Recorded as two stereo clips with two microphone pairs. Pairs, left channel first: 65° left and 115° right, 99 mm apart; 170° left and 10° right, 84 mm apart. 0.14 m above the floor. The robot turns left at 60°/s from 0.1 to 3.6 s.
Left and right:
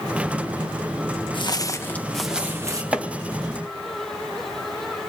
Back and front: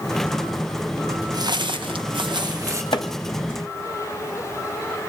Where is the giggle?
I don't hear a giggle.